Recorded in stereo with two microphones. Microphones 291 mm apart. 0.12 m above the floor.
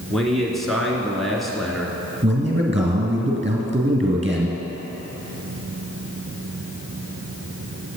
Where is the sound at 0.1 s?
Centre (ahead or behind), 1.6 m.